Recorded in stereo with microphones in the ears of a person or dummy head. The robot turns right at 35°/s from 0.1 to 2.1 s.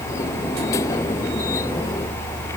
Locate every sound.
Only background noise.